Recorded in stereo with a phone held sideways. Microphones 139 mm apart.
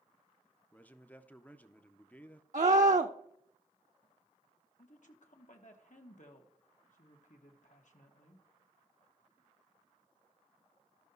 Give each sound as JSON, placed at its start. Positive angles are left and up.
{"t": 0.7, "sound": "a man speaking", "side_deg": 10, "distance_m": 0.6}
{"t": 2.5, "sound": "a scream", "side_deg": -60, "distance_m": 0.5}
{"t": 4.8, "sound": "a woman speaking", "side_deg": 60, "distance_m": 1.3}